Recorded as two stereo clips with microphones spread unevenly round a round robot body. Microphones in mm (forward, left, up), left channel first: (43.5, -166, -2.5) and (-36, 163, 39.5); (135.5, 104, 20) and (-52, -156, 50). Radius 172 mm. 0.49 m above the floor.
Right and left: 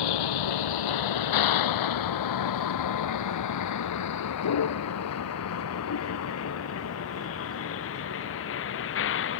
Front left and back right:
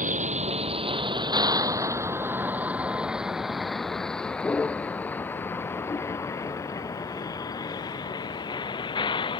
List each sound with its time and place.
0.0 s a vehicle: 60° right; by 9.4 s 20° right